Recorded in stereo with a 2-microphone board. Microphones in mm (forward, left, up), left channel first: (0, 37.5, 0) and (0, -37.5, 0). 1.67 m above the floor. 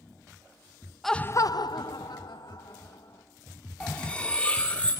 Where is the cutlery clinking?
15° left (ahead or behind), 3 m.